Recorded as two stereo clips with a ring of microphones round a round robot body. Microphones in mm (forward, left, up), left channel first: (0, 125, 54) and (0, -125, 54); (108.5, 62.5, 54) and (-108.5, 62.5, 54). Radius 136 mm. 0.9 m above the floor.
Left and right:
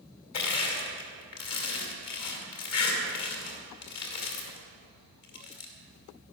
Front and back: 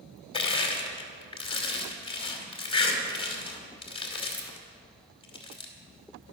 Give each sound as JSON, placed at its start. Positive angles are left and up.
{"t": 0.3, "sound": "crushing", "azimuth_deg": 65, "distance_m": 2.5}